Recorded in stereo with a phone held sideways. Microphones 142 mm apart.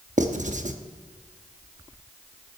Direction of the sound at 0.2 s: 60° right (ahead or behind).